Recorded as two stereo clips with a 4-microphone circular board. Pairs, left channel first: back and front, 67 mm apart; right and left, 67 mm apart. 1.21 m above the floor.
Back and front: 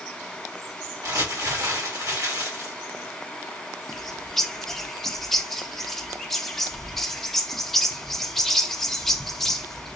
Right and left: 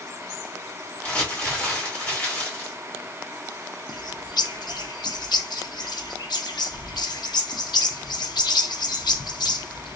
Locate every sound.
1.0 s crumpling: 25° right, 2 m
3.9 s a bird: 95° right, 0.5 m